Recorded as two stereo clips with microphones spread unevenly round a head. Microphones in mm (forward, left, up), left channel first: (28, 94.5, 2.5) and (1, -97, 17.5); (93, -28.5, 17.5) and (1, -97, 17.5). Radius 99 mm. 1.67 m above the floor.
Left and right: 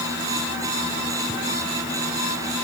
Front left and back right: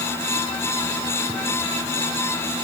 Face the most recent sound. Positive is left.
No sound to turn to.